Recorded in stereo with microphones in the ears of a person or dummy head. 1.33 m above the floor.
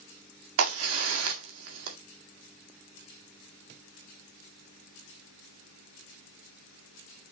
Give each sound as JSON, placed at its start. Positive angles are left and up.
{"t": 0.6, "sound": "a crack", "side_deg": -75, "distance_m": 1.8}